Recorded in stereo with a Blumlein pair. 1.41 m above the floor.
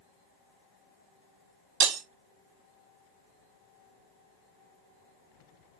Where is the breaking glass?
40° right, 1.7 m.